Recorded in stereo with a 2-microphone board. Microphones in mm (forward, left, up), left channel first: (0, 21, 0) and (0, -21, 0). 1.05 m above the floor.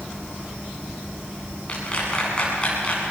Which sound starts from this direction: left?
A clap, at 1.7 s.